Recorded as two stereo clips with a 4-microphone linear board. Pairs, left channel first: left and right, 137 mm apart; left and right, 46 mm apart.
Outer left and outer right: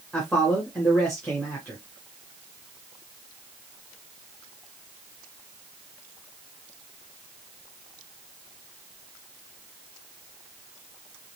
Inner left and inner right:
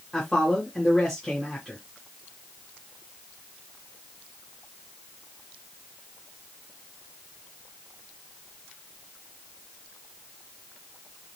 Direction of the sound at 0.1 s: 10° left (ahead or behind).